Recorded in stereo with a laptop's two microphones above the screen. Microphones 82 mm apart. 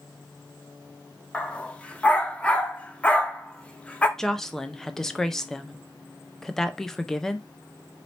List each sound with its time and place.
1.3 s a dog barking: 15° left (ahead or behind), 0.5 m
4.2 s a woman speaking: 5° left (ahead or behind), 0.6 m